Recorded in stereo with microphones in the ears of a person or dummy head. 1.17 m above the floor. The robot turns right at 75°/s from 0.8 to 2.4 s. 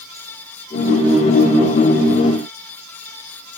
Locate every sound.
Only background noise.